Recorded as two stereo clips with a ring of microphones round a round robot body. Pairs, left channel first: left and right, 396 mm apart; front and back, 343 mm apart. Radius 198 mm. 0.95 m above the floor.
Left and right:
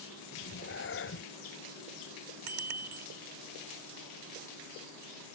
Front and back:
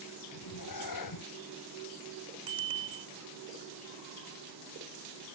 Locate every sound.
0.3 s a cat meowing: 30° left
2.5 s a bicycle bell: 105° right